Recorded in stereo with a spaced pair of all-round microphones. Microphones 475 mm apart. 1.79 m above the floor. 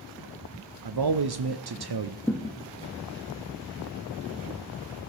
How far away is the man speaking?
About 0.6 m.